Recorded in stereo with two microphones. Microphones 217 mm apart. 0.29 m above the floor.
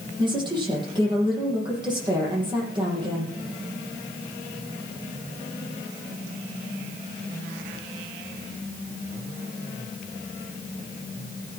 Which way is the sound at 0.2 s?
20° right (ahead or behind).